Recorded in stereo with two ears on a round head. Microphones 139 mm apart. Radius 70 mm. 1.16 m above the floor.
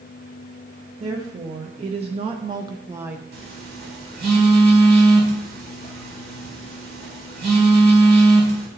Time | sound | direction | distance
1.0 | a woman speaking | 35° right (ahead or behind) | 1.0 m
3.3 | a phone buzzing | 70° right (ahead or behind) | 1.7 m